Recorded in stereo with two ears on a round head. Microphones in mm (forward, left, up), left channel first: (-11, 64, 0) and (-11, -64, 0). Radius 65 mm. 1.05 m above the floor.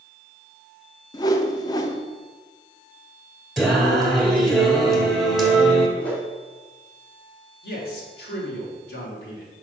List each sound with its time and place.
1.1 s a whoosh: 25° left (ahead or behind), 0.6 m
3.6 s singing: centre (ahead or behind), 1.7 m
6.0 s a whoosh: 10° left (ahead or behind), 2 m
7.6 s a man speaking: 85° left, 2.5 m